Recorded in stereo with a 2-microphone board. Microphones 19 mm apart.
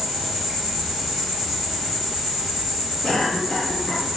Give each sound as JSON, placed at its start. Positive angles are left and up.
{"t": 0.0, "sound": "an insect", "side_deg": -20, "distance_m": 1.4}
{"t": 3.0, "sound": "a cough", "side_deg": 40, "distance_m": 1.1}